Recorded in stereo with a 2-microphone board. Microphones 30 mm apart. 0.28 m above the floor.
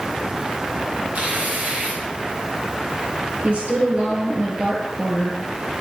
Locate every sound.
1.1 s tearing paper: 70° right (ahead or behind), 6 m
3.4 s a woman speaking: 45° right (ahead or behind), 4.5 m